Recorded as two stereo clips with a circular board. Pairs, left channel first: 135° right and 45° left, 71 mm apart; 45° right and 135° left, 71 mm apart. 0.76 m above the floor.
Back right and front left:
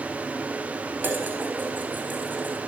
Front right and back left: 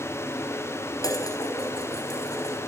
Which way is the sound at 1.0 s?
15° right.